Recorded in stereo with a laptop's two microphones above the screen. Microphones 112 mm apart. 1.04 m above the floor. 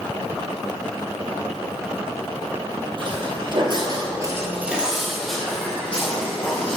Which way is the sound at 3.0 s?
45° right (ahead or behind).